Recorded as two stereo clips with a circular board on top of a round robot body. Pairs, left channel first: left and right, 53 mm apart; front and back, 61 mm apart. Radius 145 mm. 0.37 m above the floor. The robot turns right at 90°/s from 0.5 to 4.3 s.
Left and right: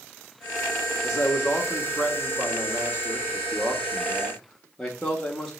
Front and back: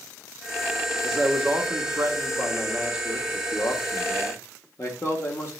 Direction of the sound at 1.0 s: 70° left.